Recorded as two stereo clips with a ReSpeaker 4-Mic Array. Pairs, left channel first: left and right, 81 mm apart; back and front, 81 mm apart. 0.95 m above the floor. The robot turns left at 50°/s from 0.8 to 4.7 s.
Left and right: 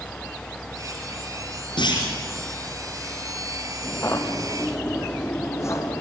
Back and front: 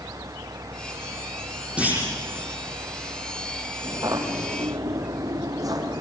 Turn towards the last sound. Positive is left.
turn(degrees=40)